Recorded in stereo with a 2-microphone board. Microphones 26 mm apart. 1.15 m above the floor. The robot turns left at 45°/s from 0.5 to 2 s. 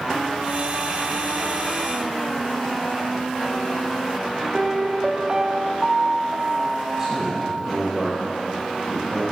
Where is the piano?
25° right (ahead or behind), 0.6 m.